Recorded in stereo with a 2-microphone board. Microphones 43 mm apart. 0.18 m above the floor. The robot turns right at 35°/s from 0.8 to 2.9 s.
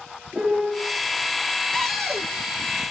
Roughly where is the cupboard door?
Centre.